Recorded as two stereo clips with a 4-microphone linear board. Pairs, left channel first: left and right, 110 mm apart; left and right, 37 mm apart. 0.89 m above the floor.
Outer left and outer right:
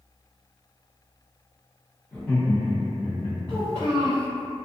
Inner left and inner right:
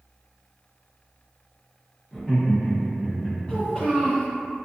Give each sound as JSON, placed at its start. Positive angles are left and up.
{"t": 2.1, "sound": "laughter", "side_deg": 10, "distance_m": 1.2}
{"t": 3.5, "sound": "a child speaking", "side_deg": 35, "distance_m": 1.0}